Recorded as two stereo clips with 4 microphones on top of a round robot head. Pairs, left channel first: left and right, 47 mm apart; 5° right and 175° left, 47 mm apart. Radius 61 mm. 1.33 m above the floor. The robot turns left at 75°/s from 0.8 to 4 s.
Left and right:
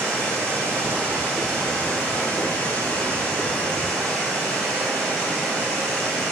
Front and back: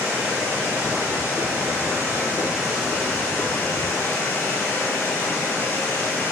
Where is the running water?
130° right, 1.7 m; by 6.3 s 10° right, 1.7 m.